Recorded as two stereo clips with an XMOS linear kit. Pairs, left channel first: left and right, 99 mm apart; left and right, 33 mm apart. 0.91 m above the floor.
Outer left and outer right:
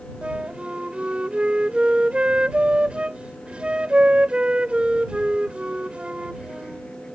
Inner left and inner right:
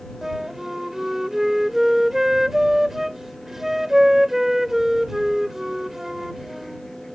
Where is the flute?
10° right (ahead or behind).